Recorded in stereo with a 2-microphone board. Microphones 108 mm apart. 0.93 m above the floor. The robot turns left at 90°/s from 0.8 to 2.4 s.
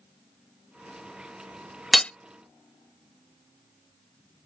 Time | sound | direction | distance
1.9 | hammering | centre (ahead or behind) | ?